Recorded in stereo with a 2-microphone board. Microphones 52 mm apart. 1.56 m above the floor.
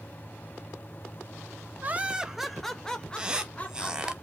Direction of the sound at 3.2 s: 15° right (ahead or behind).